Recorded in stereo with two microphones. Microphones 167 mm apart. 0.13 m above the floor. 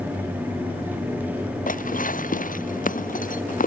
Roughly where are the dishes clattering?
Left.